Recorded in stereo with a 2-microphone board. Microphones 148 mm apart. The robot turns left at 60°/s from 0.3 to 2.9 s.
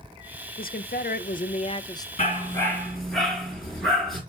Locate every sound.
0.6 s a woman speaking: 110° left, 0.6 m; by 2.1 s 20° left, 0.6 m
2.2 s a dog barking: 45° left, 5 m; by 4.2 s straight ahead, 5 m